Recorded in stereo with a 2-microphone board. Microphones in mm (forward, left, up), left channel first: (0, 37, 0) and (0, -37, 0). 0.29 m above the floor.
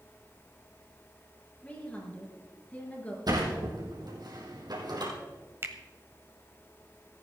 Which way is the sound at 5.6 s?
35° right (ahead or behind).